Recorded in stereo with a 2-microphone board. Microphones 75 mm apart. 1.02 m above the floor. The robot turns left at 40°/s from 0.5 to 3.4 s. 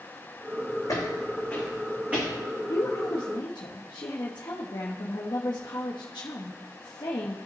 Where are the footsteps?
50° left (ahead or behind), 3 m; by 2.3 s 30° right (ahead or behind), 4 m.